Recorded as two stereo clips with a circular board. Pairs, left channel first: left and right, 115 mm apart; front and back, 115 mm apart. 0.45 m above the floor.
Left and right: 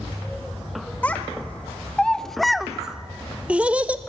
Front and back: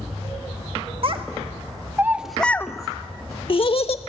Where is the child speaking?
165° left, 0.8 m; by 4.0 s 15° right, 1.0 m.